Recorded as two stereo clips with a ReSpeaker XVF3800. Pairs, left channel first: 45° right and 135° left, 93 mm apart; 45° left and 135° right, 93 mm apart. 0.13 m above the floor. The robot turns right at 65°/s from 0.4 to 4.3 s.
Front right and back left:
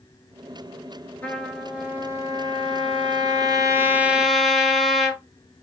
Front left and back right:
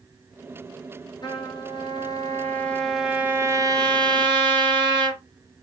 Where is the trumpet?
25° left, 0.7 m; by 5.2 s 135° right, 0.7 m.